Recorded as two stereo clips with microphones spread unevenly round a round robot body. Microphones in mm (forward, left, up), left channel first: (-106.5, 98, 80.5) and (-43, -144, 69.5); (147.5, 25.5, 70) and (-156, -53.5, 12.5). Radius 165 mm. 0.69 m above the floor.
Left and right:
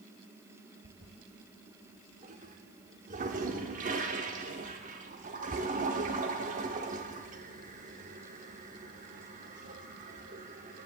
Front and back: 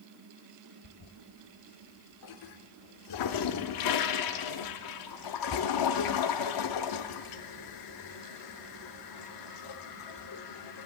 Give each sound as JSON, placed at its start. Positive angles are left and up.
{"t": 0.8, "sound": "a toilet flushing", "azimuth_deg": -10, "distance_m": 0.5}